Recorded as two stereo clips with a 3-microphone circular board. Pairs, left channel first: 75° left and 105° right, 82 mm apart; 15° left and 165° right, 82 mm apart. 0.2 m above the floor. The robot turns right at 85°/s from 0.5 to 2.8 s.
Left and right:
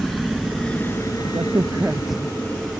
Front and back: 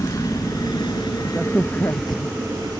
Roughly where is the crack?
Right.